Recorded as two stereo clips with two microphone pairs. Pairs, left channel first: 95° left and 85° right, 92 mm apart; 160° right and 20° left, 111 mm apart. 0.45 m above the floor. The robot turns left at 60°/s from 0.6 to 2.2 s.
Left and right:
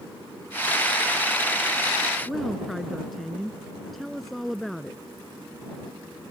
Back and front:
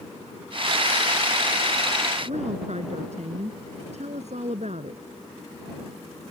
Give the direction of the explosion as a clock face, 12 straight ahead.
No explosion in this recording.